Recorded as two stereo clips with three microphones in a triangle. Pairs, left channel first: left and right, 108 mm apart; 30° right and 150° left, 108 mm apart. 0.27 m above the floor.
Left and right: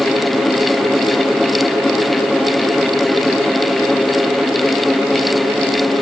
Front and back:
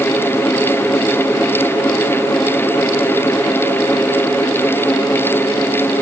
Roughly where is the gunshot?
I don't hear a gunshot.